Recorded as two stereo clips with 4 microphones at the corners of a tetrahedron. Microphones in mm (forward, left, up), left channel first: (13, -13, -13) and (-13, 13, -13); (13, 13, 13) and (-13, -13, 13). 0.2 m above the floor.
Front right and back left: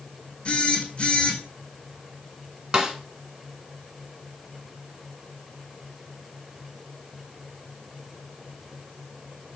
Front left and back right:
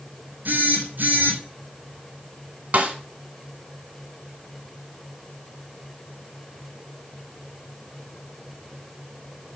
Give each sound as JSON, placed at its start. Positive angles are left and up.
{"t": 0.5, "sound": "a phone buzzing", "azimuth_deg": -105, "distance_m": 2.5}
{"t": 2.7, "sound": "a snare drum", "azimuth_deg": -160, "distance_m": 1.6}